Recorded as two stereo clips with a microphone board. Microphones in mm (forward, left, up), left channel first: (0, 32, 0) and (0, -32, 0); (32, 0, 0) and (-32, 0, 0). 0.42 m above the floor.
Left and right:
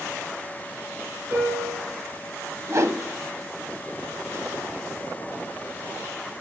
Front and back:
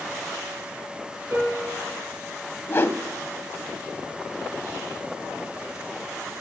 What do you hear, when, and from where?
1.3 s a piano: 135° right, 3.5 m
2.7 s a whoosh: 55° right, 0.7 m